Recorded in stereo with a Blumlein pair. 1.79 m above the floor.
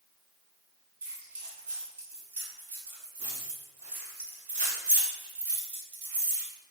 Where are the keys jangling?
60° right, 2 m.